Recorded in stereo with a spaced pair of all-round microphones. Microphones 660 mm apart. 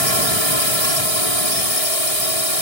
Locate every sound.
0.0 s a drone: 60° right (ahead or behind)